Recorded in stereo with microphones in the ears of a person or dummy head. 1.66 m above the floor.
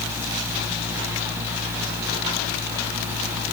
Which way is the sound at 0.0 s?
5° right (ahead or behind).